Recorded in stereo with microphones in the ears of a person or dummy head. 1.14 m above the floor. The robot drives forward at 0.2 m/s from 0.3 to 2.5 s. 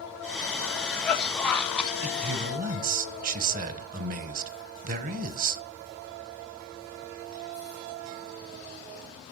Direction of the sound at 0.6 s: 10° left (ahead or behind).